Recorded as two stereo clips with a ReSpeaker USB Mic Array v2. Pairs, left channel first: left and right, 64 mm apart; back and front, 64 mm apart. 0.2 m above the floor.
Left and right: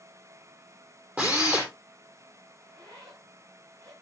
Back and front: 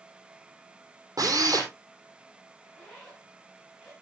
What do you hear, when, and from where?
1.2 s a drill: 25° right, 4.5 m
2.6 s a zipper: 95° right, 8 m